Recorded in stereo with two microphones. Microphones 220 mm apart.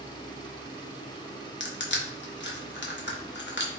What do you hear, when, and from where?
1.6 s crushing: 55° left (ahead or behind), 0.7 m